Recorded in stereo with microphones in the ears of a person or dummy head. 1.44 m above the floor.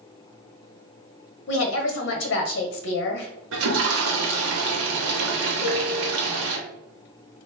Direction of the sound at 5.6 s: 20° left (ahead or behind).